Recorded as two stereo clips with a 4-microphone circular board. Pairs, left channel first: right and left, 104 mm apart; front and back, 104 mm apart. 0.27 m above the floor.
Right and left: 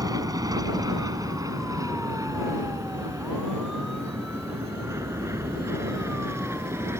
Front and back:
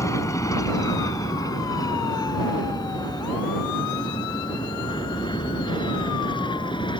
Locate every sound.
0.0 s an aircraft: 50° left; by 7.0 s 30° left